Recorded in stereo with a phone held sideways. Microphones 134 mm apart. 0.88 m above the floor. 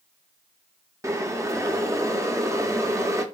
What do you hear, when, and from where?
1.0 s boiling: 25° right (ahead or behind), 0.6 m